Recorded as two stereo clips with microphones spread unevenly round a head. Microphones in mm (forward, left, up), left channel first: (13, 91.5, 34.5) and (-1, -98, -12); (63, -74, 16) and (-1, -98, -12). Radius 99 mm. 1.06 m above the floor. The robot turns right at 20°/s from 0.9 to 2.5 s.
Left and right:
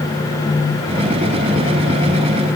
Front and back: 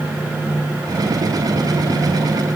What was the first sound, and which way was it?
Only background noise.